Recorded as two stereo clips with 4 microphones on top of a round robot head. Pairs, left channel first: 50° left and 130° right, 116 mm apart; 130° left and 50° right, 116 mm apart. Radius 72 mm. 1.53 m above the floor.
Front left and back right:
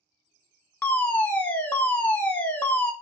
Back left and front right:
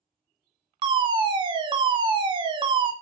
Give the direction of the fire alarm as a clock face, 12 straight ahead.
1 o'clock.